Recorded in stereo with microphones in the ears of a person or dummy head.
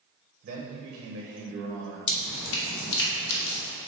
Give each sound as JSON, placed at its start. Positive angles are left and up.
{"t": 0.4, "sound": "a man speaking", "side_deg": -55, "distance_m": 0.6}
{"t": 2.1, "sound": "dripping", "side_deg": 65, "distance_m": 1.2}